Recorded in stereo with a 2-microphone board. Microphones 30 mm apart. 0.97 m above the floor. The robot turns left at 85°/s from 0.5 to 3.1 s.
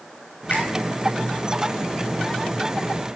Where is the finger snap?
85° left, 3.5 m; by 0.7 s 75° left (ahead or behind), 3.5 m.